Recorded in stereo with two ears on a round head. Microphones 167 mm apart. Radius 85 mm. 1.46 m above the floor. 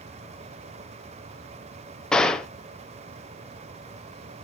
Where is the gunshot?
5° left (ahead or behind), 0.9 m.